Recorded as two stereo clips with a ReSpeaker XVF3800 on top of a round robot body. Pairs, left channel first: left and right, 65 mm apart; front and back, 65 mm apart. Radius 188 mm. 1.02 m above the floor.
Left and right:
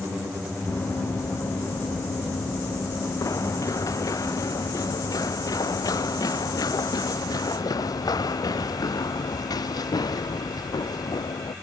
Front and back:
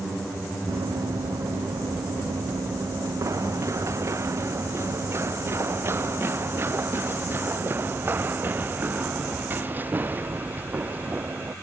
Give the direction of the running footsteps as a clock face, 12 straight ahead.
7 o'clock.